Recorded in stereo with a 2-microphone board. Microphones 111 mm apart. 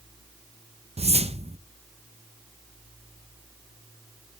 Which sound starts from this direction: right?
A whoosh, at 1.0 s.